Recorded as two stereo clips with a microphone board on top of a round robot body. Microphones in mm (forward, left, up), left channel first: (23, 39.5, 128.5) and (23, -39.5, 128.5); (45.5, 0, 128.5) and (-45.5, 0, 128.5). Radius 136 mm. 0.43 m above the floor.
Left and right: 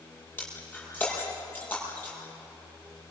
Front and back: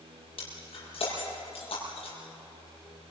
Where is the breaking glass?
20° left, 8 m.